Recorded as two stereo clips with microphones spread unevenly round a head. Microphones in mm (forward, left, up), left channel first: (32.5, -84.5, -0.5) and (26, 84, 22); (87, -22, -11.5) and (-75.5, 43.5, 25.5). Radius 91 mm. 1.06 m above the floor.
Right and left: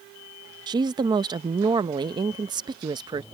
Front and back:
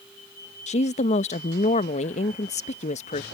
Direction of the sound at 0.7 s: 25° left.